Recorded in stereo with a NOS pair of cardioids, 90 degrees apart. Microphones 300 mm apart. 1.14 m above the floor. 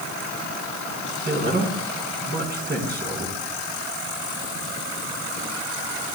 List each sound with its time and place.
1.2 s a man speaking: 35° right, 4 m